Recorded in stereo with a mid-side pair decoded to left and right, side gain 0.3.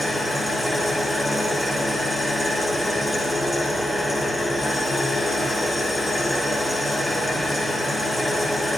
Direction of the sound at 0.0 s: 35° left.